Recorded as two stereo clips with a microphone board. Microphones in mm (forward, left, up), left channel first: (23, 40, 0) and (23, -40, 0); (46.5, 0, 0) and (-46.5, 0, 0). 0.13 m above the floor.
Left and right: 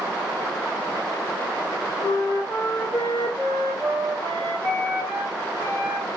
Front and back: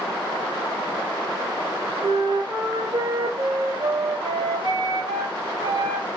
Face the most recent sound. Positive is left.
turn(degrees=150)